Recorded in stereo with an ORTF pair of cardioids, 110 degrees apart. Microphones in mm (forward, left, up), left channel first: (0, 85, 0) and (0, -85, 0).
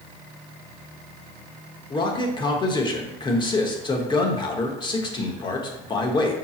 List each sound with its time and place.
1.9 s a man speaking: 30° left, 1.1 m